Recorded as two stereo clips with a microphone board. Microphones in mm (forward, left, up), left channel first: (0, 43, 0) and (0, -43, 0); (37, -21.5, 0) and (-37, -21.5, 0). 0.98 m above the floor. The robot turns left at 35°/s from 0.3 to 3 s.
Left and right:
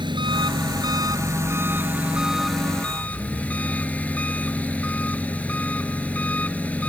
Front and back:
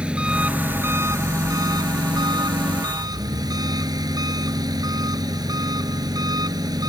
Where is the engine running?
105° right; by 6.9 s 160° left.